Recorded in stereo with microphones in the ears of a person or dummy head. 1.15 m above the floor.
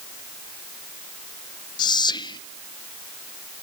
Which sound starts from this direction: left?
Whispering, at 1.8 s.